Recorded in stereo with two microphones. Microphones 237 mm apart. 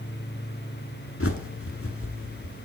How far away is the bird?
About 0.8 m.